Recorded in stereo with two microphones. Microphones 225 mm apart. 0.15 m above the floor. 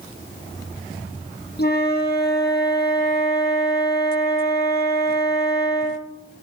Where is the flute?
50° left (ahead or behind), 4.5 m.